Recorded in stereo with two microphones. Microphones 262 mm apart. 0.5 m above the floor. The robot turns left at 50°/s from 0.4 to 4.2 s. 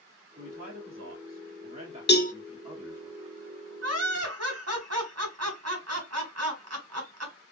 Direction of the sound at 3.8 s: 65° right (ahead or behind).